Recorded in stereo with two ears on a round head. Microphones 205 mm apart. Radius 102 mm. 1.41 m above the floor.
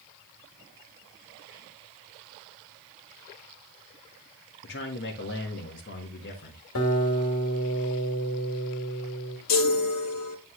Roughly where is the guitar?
Left.